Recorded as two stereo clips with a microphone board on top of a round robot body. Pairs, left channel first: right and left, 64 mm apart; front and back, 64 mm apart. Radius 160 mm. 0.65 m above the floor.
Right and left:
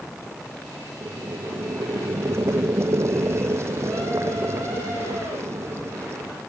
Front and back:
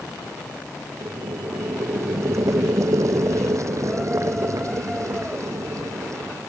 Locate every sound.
1.0 s boiling: 140° left